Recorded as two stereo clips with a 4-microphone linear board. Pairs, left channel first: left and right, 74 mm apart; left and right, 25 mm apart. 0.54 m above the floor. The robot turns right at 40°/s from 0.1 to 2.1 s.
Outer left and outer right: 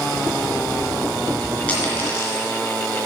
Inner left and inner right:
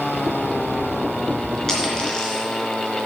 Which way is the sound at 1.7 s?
15° left (ahead or behind).